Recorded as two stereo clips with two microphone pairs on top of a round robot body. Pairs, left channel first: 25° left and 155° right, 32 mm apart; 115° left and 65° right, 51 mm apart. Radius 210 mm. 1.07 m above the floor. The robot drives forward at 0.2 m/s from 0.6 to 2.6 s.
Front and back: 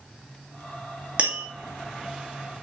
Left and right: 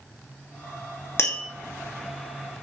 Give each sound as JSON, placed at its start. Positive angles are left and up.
{"t": 1.2, "sound": "tapping", "azimuth_deg": 150, "distance_m": 2.5}